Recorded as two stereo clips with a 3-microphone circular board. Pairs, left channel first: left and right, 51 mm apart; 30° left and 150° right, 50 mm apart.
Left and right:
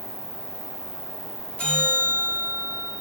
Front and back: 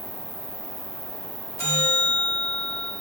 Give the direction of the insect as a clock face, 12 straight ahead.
10 o'clock.